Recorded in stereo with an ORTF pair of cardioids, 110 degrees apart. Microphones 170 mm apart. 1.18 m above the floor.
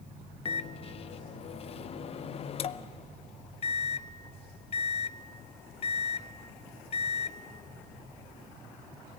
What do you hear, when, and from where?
0.5 s a microwave: 40° left, 0.6 m